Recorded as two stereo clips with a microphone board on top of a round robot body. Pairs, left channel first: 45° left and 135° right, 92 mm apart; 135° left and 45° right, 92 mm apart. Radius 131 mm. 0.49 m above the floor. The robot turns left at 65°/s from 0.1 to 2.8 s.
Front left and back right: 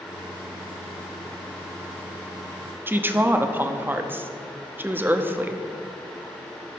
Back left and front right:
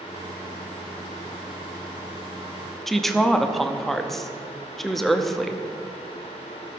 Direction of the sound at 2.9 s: 140° right.